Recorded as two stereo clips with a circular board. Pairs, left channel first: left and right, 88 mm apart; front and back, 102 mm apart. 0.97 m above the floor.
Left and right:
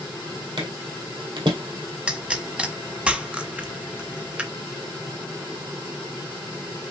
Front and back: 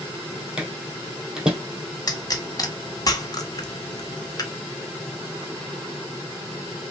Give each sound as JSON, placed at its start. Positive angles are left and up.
{"t": 0.6, "sound": "footsteps", "azimuth_deg": -100, "distance_m": 2.0}
{"t": 2.1, "sound": "a pop", "azimuth_deg": -15, "distance_m": 0.8}